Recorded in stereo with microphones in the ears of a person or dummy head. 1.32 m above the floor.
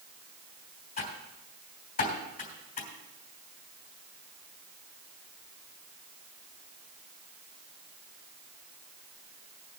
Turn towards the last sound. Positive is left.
turn(degrees=40)  # may be behind; listen again after turning